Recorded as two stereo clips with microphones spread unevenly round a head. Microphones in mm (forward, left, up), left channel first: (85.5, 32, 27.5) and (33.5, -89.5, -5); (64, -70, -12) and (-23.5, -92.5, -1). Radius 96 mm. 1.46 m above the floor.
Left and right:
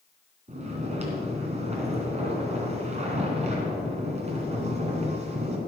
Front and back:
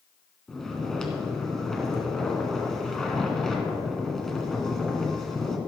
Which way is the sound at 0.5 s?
75° right.